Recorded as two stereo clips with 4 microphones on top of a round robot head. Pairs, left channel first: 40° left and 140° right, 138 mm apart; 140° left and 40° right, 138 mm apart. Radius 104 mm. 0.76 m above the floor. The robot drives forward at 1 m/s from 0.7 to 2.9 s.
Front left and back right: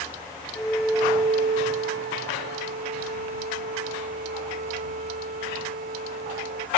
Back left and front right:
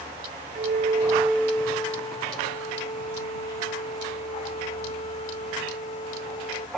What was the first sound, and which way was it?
A flute, 40° right.